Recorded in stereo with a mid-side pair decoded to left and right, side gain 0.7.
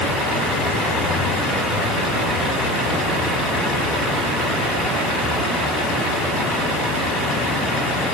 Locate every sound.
Only background noise.